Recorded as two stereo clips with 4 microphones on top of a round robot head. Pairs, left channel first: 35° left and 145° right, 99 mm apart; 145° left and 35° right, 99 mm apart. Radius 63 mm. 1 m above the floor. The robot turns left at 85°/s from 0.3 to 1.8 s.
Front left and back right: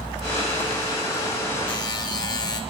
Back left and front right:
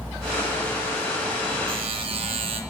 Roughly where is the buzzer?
Ahead.